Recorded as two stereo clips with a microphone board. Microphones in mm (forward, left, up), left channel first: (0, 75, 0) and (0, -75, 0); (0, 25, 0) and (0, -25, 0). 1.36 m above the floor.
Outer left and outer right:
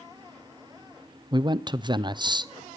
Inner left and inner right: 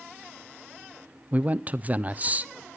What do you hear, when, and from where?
1.3 s a man speaking: 30° right (ahead or behind), 0.6 m